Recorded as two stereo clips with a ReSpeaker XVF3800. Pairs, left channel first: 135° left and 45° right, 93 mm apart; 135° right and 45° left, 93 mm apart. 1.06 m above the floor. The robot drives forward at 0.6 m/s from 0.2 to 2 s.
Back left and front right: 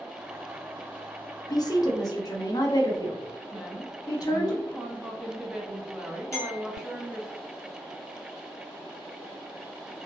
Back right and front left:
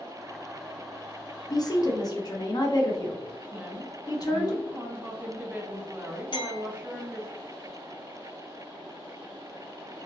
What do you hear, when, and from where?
1.5 s a woman speaking: straight behind, 0.6 m
3.5 s a woman speaking: 20° left, 0.7 m
6.3 s a clink: 170° right, 1.6 m